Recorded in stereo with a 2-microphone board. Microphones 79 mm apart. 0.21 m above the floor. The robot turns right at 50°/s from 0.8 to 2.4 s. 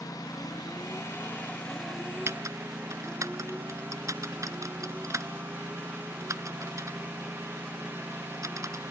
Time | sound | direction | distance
0.0 | a lawn mower | 125° left | ?
2.3 | typing on a keyboard | 35° right (ahead or behind) | ?